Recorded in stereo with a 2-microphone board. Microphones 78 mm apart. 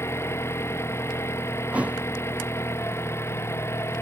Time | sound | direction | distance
0.0 | an engine running | 30° left (ahead or behind) | ?
1.7 | a thud | 15° right (ahead or behind) | ?